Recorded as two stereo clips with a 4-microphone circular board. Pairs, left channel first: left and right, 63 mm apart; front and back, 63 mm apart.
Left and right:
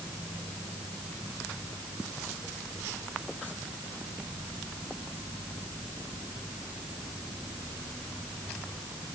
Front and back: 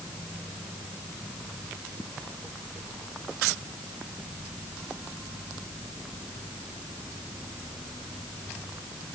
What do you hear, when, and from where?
Only background noise.